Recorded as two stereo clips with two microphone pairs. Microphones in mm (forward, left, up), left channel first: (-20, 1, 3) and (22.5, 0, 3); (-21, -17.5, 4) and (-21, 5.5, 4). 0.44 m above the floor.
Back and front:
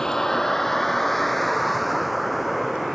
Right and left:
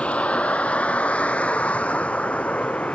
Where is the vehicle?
105° right; by 3.0 s 90° right.